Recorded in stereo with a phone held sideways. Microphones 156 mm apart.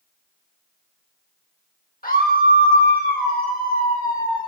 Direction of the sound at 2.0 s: 75° left (ahead or behind).